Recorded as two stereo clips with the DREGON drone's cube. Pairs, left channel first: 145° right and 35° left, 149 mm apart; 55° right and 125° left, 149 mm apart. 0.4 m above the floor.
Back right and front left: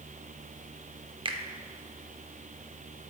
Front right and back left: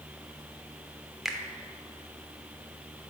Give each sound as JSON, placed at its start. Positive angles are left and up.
{"t": 1.2, "sound": "a finger snap", "azimuth_deg": 40, "distance_m": 0.7}